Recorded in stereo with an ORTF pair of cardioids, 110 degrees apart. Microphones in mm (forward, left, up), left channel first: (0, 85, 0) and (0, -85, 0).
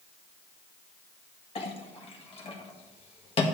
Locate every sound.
1.6 s a clink: 40° left, 1.6 m